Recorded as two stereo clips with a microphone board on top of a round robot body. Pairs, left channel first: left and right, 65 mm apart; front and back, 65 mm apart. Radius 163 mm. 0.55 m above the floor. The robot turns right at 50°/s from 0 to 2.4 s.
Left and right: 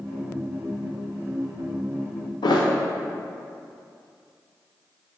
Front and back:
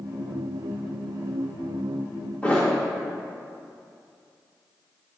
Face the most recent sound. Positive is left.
turn(degrees=75)